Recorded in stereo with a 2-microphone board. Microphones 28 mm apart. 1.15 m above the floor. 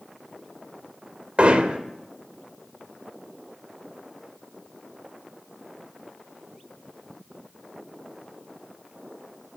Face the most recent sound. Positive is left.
turn(degrees=-45)  # may be behind; listen again after turning